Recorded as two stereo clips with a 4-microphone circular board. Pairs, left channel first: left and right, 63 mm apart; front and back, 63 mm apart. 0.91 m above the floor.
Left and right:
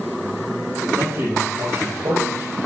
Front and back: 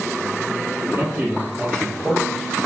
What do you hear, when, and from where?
0.9 s a man speaking: 120° right, 3 m; by 2.6 s 95° right, 4 m